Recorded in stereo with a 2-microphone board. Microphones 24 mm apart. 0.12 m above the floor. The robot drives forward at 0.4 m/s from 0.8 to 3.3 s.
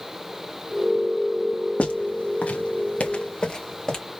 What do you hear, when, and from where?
1.8 s footsteps: 70° left (ahead or behind), 2 m; by 4.0 s 25° left (ahead or behind), 2.0 m